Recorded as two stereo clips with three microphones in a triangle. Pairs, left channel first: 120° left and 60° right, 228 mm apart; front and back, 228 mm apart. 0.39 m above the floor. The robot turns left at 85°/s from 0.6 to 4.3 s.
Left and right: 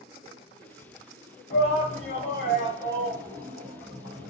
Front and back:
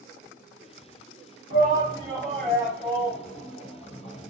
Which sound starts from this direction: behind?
A shout, at 1.5 s.